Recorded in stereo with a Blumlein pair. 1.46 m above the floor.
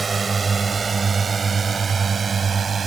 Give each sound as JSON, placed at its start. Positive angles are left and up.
{"t": 0.0, "sound": "a drone", "azimuth_deg": -15}